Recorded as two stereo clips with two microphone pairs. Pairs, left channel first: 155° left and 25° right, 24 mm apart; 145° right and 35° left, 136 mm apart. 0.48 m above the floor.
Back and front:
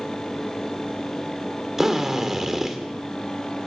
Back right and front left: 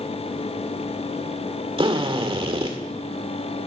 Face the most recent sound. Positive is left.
turn(degrees=45)